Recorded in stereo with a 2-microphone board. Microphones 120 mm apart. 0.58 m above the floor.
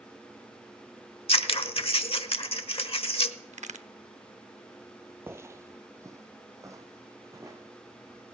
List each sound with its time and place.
1.3 s scissors: 50° left (ahead or behind), 0.9 m
3.5 s a crack: 75° right (ahead or behind), 0.6 m
5.3 s footsteps: 20° right (ahead or behind), 0.6 m; by 8.2 s 25° right (ahead or behind), 2.5 m